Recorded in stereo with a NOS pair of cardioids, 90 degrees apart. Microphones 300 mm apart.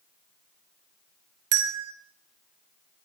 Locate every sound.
1.5 s a bell: 55° right, 0.6 m